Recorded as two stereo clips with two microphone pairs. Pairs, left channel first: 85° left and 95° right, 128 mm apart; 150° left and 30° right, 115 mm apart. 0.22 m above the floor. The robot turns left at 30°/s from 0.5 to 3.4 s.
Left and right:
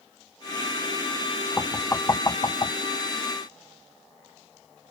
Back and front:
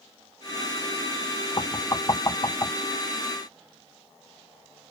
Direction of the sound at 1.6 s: 150° left.